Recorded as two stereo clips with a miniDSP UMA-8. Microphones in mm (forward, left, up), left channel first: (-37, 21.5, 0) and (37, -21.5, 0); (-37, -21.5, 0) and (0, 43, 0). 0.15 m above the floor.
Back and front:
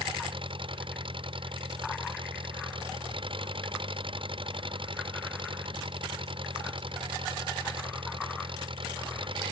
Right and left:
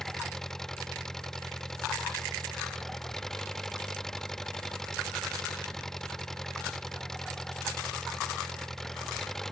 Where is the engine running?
35° right.